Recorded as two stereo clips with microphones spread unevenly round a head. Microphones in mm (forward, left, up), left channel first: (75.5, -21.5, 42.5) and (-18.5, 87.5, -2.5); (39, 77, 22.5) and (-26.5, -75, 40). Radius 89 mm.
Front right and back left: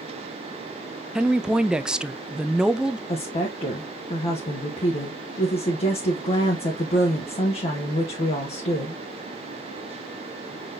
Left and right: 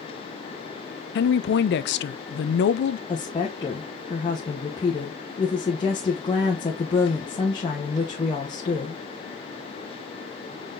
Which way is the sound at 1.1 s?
50° left.